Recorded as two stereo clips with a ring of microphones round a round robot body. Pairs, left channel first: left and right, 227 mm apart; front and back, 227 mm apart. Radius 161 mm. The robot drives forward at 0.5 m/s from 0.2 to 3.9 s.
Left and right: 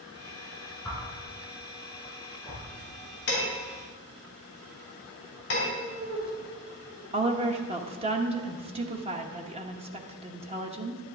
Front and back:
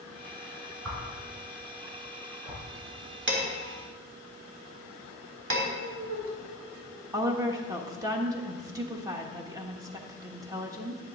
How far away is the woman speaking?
About 1.0 m.